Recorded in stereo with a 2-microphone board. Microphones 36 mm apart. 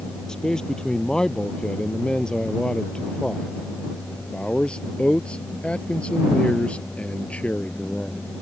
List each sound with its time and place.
0.3 s a man speaking: 20° left (ahead or behind); by 8.2 s 40° left (ahead or behind)